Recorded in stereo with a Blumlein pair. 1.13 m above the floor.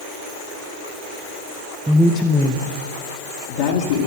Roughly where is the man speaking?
Ahead.